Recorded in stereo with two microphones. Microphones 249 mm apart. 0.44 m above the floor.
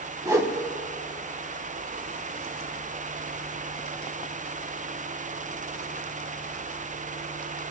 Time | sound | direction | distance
0.2 | a whoosh | 15° right (ahead or behind) | 0.8 m